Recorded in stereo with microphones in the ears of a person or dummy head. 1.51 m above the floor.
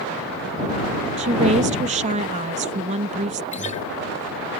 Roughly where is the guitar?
Left.